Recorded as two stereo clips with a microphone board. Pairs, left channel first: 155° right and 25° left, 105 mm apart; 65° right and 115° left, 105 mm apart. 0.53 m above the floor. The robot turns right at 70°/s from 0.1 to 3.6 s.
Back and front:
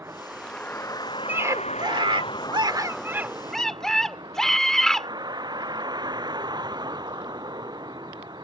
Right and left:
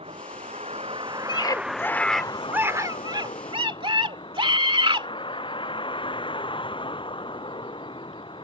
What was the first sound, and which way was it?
A vehicle, 90° left.